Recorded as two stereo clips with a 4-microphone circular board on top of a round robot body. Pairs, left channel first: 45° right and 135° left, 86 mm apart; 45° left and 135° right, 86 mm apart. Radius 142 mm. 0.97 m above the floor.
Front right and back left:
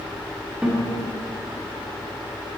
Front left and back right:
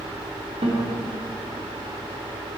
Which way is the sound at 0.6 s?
145° right.